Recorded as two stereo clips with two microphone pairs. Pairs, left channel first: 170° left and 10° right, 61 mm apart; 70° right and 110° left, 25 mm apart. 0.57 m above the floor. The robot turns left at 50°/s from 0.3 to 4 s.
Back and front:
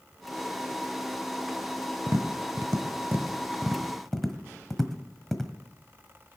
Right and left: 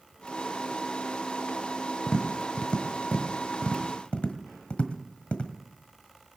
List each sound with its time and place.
2.1 s tapping: 10° right, 1.4 m; by 5.5 s 105° right, 1.4 m